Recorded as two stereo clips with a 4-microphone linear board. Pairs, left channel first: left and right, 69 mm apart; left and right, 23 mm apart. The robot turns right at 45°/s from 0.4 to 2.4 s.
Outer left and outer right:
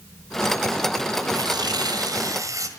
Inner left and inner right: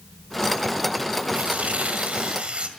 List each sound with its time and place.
1.3 s tearing paper: 100° right, 1.9 m; by 2.7 s 55° right, 1.9 m